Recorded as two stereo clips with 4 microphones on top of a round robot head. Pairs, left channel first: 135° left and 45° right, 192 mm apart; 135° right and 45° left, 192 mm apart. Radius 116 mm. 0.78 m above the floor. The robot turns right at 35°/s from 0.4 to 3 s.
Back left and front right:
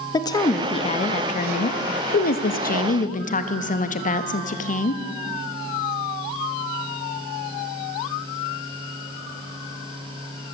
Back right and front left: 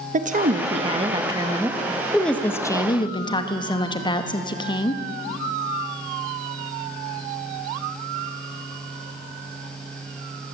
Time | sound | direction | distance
0.1 | a woman speaking | 75° left | 1.4 m